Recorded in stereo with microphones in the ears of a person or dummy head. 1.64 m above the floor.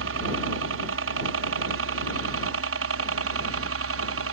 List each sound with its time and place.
0.0 s a helicopter: 70° right (ahead or behind)